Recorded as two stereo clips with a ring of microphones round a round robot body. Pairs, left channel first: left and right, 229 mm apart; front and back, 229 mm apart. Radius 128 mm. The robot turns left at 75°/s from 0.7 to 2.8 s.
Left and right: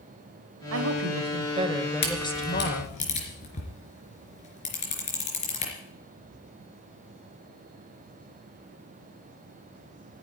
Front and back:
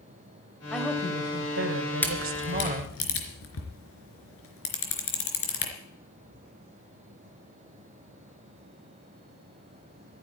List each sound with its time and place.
0.7 s a woman speaking: 85° right, 2 m; by 3.0 s 120° left, 2 m
2.0 s a camera shutter: 85° left, 3.5 m; by 5.7 s 25° left, 3.5 m